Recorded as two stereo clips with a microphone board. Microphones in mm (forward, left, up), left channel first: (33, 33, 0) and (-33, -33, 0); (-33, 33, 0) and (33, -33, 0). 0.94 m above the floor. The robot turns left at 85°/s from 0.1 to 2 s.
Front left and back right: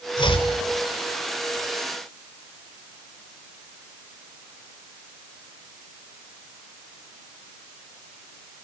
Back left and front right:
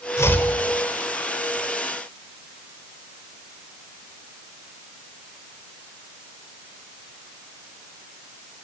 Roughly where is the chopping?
Left.